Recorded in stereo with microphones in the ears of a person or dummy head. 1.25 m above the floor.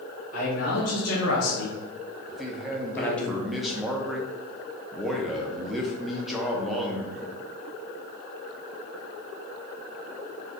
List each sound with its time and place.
0.3 s a man speaking: 65° left (ahead or behind), 1.5 m; by 3.3 s 5° left (ahead or behind), 1.0 m
2.3 s a man speaking: centre (ahead or behind), 0.5 m